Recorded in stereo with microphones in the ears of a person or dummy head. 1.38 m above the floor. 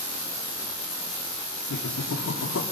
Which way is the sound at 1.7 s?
85° left.